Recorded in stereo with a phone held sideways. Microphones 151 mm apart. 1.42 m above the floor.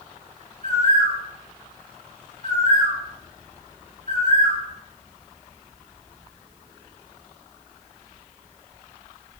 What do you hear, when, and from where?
0.6 s a bird: 55° right (ahead or behind), 1.1 m